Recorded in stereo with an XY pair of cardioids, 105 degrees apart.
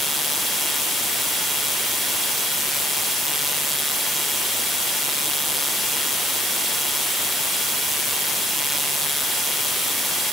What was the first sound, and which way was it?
Only background noise.